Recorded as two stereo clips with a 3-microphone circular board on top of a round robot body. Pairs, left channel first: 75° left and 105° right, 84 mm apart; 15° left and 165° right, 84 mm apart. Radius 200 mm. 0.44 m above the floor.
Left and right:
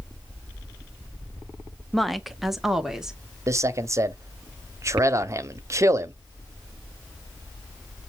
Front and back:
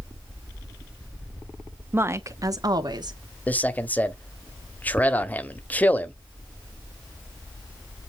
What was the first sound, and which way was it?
A woman speaking, 160° left.